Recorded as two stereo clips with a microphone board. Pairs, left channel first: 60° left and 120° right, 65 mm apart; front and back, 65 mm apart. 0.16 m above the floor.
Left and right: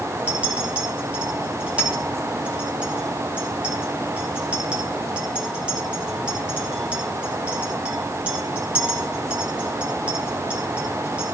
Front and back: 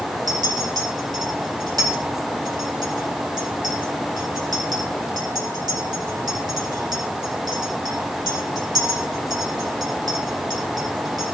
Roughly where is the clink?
Behind.